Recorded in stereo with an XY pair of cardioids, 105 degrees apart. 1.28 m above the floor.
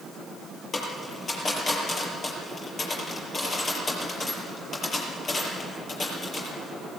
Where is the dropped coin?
40° left, 6.5 m.